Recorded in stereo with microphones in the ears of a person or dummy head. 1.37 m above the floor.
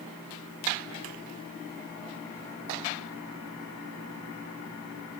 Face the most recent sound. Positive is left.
No sound to turn to.